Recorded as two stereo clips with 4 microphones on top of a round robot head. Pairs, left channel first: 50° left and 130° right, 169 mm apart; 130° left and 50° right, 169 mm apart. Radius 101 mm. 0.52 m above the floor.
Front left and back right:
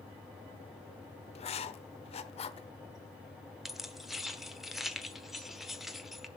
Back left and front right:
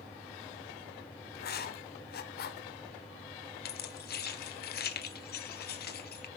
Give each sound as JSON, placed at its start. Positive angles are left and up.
{"t": 1.4, "sound": "writing", "azimuth_deg": 105, "distance_m": 1.0}
{"t": 3.6, "sound": "keys jangling", "azimuth_deg": 140, "distance_m": 1.2}